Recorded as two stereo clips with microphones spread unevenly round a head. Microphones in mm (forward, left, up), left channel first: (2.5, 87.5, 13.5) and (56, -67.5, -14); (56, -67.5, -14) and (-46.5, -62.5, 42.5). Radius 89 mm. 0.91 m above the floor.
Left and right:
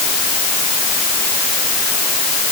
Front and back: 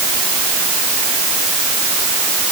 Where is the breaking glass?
I don't hear breaking glass.